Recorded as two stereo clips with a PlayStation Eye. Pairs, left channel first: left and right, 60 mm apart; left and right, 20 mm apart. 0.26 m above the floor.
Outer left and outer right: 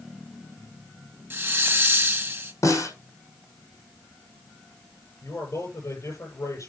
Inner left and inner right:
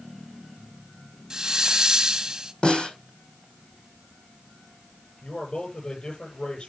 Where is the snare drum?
65° left (ahead or behind), 7 m.